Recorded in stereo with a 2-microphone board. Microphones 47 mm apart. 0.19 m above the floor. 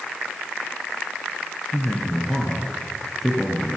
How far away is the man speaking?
About 3 m.